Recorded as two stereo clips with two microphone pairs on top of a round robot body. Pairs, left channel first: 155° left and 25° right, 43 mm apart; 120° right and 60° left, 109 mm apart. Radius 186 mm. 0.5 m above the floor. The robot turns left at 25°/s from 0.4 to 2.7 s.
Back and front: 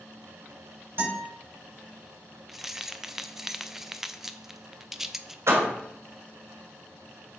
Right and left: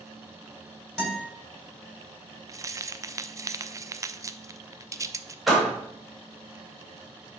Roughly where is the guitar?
Ahead right.